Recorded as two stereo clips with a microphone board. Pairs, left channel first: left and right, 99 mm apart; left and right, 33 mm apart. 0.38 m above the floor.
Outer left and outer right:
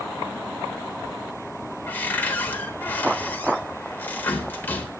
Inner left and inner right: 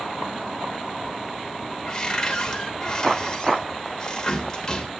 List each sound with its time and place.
1.9 s a cupboard door: 20° left (ahead or behind), 1.1 m